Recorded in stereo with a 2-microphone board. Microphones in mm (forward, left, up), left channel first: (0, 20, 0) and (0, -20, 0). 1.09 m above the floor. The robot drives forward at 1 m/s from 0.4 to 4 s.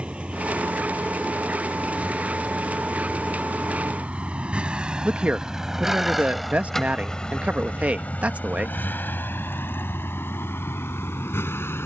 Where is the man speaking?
35° right (ahead or behind).